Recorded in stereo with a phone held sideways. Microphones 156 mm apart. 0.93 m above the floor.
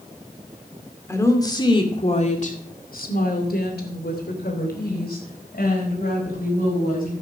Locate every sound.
1.1 s a woman speaking: 15° left (ahead or behind), 2.5 m; by 7.1 s 65° left (ahead or behind), 5.5 m